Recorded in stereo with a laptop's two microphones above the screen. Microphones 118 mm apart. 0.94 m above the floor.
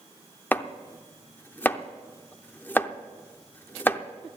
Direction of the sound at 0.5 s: 15° left (ahead or behind).